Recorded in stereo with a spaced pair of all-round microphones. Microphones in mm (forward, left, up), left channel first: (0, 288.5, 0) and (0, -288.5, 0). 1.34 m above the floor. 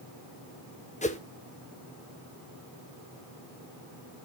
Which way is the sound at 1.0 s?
15° left (ahead or behind).